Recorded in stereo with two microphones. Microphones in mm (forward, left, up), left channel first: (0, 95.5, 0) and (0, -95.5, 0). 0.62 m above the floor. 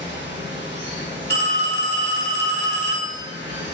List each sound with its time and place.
0.0 s running water: 70° right (ahead or behind), 1.3 m
1.3 s a phone ringing: 60° left (ahead or behind), 1.1 m